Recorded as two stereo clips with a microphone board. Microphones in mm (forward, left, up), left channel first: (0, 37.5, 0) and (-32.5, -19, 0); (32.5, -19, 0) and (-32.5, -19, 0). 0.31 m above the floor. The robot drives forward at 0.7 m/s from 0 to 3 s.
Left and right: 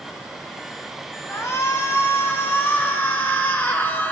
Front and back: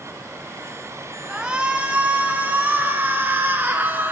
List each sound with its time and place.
1.3 s a shout: 100° left, 3.5 m; by 4.1 s 120° left, 4 m